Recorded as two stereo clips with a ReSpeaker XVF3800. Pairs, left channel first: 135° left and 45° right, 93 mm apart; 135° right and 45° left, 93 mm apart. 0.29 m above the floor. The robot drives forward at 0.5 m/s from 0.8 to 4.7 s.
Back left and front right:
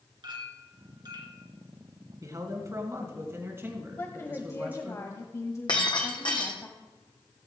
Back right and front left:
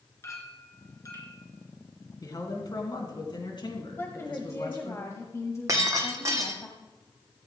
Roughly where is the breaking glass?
Left.